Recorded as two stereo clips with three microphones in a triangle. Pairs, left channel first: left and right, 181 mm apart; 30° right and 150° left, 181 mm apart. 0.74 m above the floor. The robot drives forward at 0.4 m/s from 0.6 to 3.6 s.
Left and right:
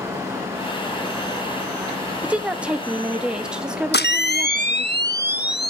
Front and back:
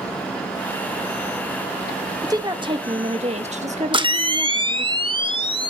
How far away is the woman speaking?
About 0.8 m.